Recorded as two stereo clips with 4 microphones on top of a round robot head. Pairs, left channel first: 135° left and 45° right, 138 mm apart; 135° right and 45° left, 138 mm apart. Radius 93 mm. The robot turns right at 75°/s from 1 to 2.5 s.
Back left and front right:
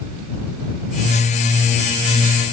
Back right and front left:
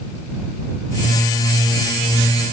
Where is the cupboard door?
I don't hear a cupboard door.